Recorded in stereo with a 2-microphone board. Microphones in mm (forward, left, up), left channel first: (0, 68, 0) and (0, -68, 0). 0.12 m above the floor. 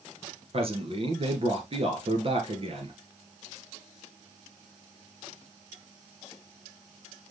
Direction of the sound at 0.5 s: 45° right (ahead or behind).